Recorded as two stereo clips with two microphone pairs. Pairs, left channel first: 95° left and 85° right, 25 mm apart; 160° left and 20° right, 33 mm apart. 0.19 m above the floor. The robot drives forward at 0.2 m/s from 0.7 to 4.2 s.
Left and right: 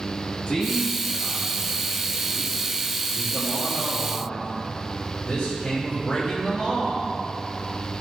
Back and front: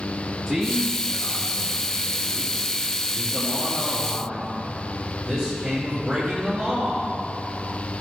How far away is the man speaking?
About 3 m.